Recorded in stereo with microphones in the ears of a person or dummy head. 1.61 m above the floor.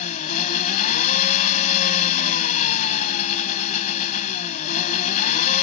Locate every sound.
0.0 s an engine running: 50° left (ahead or behind)